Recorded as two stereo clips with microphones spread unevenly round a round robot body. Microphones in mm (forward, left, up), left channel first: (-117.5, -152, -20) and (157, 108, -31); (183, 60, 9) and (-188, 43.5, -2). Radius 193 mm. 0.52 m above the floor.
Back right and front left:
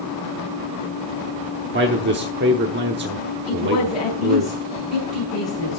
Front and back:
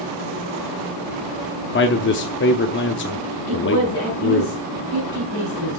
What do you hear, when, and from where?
1.7 s a man speaking: 25° left, 0.9 m
3.5 s a woman speaking: 60° right, 5.5 m